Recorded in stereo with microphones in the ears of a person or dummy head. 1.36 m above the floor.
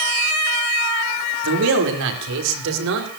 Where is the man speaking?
75° right (ahead or behind), 3.5 m.